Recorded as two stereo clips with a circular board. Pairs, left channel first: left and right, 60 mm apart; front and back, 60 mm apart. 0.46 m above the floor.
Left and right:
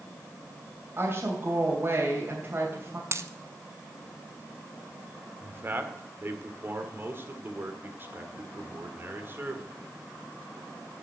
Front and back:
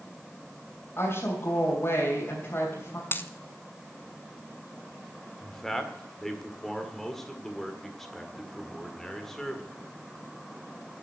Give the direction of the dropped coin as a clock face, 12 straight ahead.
2 o'clock.